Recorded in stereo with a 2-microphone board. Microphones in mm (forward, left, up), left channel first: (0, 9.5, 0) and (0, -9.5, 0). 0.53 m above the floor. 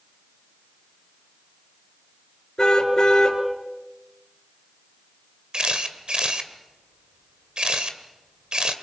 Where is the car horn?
40° left (ahead or behind), 3.5 m.